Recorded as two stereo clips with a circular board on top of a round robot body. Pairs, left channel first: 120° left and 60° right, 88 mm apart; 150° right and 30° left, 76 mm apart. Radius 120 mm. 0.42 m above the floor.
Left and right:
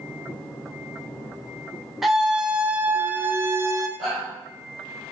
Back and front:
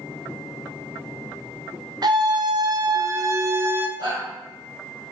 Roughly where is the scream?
Ahead left.